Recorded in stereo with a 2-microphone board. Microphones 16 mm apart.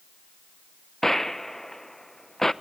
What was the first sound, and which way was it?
A gunshot, 15° left (ahead or behind).